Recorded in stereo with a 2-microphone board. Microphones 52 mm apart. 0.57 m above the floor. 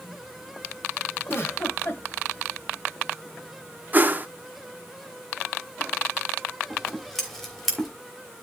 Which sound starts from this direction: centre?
Scissors, at 6.7 s.